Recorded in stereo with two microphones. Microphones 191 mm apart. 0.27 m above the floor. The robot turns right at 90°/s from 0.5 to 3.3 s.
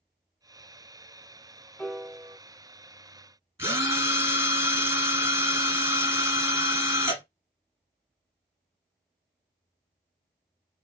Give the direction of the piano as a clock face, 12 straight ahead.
6 o'clock.